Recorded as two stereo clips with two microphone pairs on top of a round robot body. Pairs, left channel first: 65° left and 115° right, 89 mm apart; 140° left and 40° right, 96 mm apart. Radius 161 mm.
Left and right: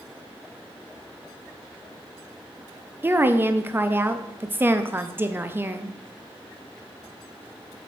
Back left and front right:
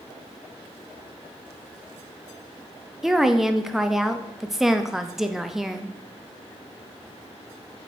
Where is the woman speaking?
120° right, 0.8 m.